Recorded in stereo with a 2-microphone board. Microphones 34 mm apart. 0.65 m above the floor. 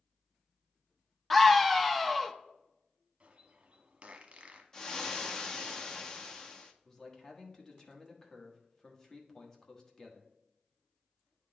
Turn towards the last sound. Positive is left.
turn(degrees=20)  # may be behind; listen again after turning